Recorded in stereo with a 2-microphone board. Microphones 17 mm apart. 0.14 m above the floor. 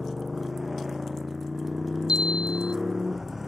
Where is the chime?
65° right (ahead or behind).